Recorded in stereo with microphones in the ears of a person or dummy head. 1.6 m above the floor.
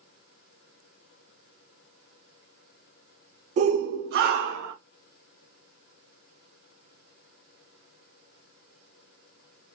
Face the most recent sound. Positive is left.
turn(degrees=-70)  # may be behind; listen again after turning